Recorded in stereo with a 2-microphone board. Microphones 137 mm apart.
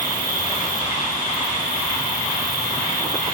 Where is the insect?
70° left (ahead or behind), 5.5 m.